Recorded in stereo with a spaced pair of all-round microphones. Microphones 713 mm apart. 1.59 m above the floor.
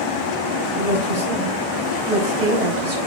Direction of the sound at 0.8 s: 75° right (ahead or behind).